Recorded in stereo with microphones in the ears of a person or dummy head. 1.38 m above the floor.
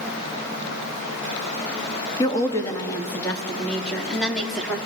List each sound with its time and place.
2.2 s a woman speaking: 25° left (ahead or behind), 2.0 m; by 4.8 s centre (ahead or behind), 3 m